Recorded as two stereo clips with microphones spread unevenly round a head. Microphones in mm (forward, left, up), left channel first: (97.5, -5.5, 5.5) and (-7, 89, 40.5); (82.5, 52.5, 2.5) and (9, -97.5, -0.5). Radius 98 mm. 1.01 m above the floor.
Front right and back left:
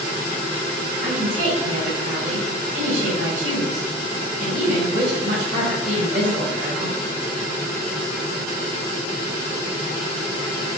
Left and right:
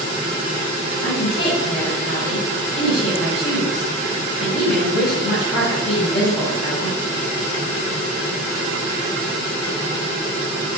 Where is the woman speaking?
110° left, 4.5 m.